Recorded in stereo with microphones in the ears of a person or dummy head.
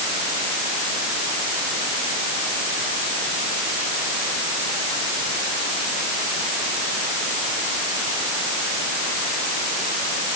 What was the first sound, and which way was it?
Only background noise.